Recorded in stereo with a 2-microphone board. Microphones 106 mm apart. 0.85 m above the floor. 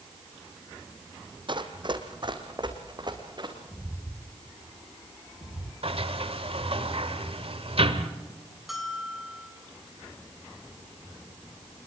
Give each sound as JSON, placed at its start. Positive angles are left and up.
{"t": 1.5, "sound": "running footsteps", "side_deg": -45, "distance_m": 1.8}
{"t": 3.7, "sound": "footsteps", "side_deg": 0, "distance_m": 1.3}
{"t": 5.8, "sound": "a sliding door", "side_deg": -60, "distance_m": 1.5}
{"t": 8.7, "sound": "a bell", "side_deg": 0, "distance_m": 3.0}